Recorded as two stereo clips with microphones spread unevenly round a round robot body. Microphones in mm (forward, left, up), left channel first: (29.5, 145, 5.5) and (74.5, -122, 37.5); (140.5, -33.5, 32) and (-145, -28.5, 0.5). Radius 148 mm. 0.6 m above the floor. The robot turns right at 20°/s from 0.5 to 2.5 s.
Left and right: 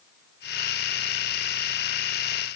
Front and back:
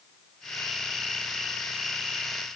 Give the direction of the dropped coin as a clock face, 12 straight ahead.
No dropped coin in this recording.